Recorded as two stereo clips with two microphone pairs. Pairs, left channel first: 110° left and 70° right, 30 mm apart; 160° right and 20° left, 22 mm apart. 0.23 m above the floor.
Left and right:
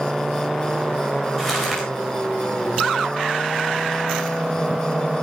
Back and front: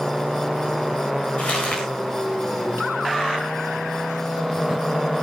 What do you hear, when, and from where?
1.4 s crumpling: 160° right, 8 m